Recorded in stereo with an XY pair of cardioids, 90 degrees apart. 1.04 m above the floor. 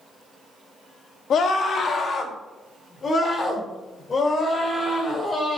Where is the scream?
65° left, 1.5 m; by 5.6 s 40° left, 4.5 m.